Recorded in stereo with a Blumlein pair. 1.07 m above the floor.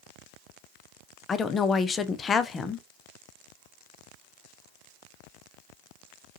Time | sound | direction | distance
1.3 | a woman speaking | 20° left | 0.5 m